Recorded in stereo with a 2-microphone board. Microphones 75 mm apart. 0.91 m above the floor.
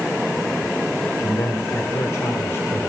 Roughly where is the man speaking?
Left.